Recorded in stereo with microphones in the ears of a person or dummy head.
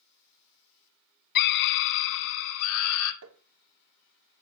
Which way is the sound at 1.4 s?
50° left (ahead or behind).